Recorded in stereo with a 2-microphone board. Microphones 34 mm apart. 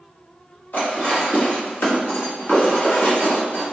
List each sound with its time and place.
0.7 s dishes clattering: 90° left, 1.4 m